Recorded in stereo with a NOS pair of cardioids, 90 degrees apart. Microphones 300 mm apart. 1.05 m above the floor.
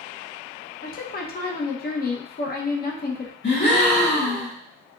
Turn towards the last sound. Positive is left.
turn(degrees=35)